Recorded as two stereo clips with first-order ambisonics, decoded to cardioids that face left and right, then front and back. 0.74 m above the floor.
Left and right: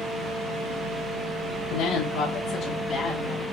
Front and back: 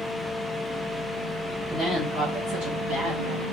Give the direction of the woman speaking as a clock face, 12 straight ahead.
8 o'clock.